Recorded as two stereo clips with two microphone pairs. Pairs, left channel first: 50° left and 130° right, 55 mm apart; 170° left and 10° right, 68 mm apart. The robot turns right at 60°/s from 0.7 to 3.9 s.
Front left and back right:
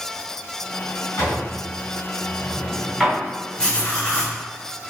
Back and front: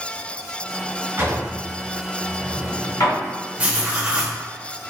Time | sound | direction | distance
1.2 | a drawer | 40° left | 1.9 m
3.6 | writing | straight ahead | 1.1 m